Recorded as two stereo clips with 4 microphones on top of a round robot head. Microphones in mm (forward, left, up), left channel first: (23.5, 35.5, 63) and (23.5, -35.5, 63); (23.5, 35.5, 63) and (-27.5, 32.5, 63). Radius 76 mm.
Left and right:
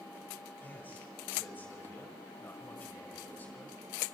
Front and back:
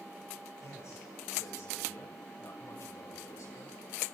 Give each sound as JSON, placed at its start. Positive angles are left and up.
{"t": 0.6, "sound": "a man speaking", "azimuth_deg": 25, "distance_m": 6.0}